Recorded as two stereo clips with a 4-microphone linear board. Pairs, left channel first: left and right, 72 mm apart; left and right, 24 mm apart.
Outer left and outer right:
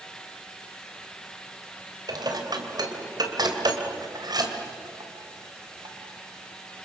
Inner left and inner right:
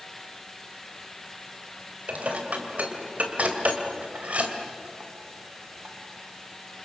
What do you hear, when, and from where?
2.1 s dishes clattering: 70° right (ahead or behind), 3 m